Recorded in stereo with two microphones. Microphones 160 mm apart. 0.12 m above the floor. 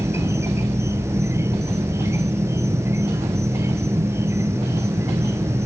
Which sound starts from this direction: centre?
An insect, at 0.0 s.